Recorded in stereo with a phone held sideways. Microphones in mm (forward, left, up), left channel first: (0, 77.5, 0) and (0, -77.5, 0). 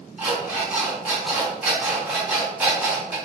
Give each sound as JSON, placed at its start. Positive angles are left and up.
{"t": 0.2, "sound": "an alarm clock", "side_deg": -5, "distance_m": 1.7}